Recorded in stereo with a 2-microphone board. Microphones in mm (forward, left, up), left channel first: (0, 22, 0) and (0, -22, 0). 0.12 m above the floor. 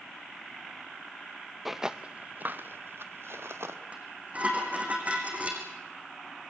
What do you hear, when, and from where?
1.6 s footsteps: 5° right (ahead or behind), 0.7 m; by 3.8 s 75° right (ahead or behind), 1.6 m
3.9 s dishes clattering: 35° right (ahead or behind), 4 m